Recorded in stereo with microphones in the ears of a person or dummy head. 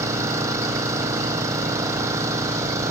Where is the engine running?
15° right (ahead or behind).